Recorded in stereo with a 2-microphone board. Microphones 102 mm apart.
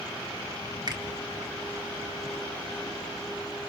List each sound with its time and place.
0.9 s a finger snap: 45° right (ahead or behind), 3 m